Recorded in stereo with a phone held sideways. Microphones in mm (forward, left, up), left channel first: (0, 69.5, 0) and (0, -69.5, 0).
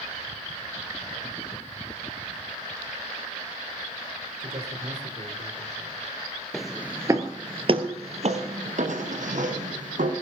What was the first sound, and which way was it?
A man speaking, 65° right (ahead or behind).